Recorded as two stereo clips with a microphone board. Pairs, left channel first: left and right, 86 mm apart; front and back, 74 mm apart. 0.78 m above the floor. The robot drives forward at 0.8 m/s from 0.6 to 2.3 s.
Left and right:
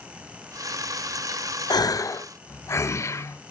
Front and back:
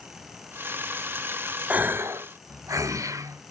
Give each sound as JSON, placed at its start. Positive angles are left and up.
{"t": 1.7, "sound": "a gasp", "azimuth_deg": 110, "distance_m": 0.7}